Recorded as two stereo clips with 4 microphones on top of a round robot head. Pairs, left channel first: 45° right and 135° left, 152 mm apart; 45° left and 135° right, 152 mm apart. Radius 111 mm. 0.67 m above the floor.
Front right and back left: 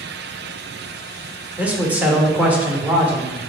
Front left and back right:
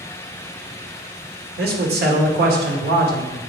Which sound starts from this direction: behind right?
A man speaking, at 1.6 s.